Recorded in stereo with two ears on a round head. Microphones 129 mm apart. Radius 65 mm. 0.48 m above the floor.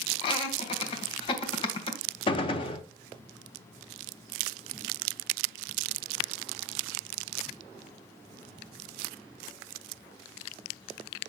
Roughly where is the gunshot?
Left.